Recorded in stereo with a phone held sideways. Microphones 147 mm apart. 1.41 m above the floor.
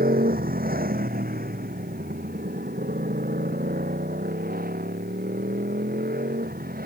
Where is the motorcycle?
80° right; by 6.9 s 85° right.